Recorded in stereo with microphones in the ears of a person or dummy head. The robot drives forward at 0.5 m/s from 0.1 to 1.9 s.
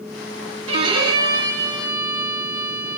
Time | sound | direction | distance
0.7 | a violin | 35° right (ahead or behind) | 0.6 m